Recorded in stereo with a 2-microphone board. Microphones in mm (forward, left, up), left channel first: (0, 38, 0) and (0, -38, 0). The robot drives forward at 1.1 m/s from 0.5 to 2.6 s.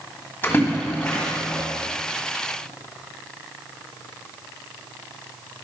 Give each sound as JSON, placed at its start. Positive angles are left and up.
{"t": 0.4, "sound": "a splash", "side_deg": 25, "distance_m": 2.5}